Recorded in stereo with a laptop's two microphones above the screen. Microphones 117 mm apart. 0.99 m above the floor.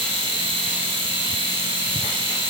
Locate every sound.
0.0 s a machine running: 45° right (ahead or behind), 1.7 m